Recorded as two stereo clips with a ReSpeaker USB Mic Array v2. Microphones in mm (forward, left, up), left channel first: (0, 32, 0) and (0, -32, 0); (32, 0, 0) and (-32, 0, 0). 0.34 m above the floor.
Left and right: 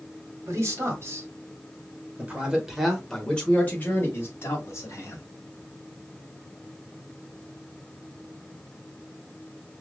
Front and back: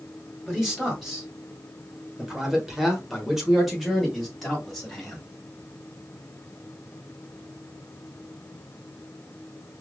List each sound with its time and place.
0.5 s a man speaking: 100° right, 1.6 m; by 5.2 s 85° left, 1.6 m